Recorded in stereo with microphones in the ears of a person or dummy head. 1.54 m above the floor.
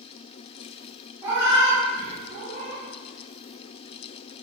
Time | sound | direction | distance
1.2 | a cat meowing | 15° right (ahead or behind) | 0.8 m